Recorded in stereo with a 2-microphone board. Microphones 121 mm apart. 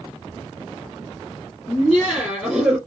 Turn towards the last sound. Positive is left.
turn(degrees=-5)  # may be behind; listen again after turning